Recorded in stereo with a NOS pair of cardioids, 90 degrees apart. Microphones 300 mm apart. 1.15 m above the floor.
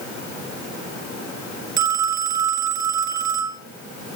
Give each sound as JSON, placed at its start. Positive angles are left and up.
{"t": 1.8, "sound": "a phone ringing", "azimuth_deg": -60, "distance_m": 1.9}